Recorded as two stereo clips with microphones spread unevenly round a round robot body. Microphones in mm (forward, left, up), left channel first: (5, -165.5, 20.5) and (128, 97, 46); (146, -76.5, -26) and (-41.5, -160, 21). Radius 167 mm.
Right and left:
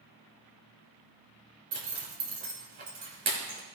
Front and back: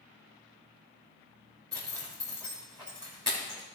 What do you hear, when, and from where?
1.7 s a zipper: 120° left, 3 m